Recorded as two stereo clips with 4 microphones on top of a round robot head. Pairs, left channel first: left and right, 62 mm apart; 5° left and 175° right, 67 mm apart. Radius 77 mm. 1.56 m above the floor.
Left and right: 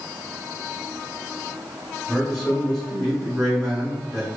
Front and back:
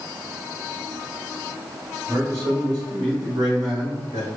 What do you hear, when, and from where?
2.1 s a man speaking: 175° left, 1.7 m